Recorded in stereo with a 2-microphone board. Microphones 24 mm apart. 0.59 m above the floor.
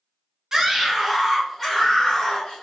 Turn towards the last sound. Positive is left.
turn(degrees=15)  # may be behind; listen again after turning